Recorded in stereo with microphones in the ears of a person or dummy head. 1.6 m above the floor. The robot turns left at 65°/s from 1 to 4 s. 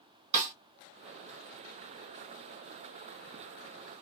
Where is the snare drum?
40° right (ahead or behind), 1.0 m.